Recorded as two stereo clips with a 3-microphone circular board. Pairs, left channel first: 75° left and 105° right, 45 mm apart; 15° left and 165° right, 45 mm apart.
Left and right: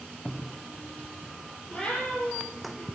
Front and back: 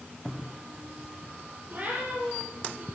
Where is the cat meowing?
140° left, 8.5 m; by 2.9 s 145° left, 7 m.